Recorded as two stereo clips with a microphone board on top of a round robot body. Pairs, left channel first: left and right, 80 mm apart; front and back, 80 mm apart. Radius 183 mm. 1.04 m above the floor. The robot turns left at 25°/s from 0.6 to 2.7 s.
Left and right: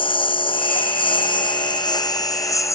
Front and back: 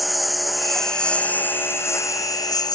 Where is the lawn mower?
90° left; by 2.8 s 40° left.